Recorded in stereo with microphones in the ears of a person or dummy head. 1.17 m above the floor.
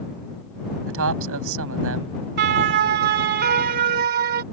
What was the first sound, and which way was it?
A man speaking, 60° right (ahead or behind).